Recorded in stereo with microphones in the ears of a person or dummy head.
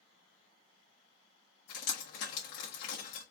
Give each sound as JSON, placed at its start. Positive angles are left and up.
{"t": 1.7, "sound": "dripping", "side_deg": 65, "distance_m": 1.5}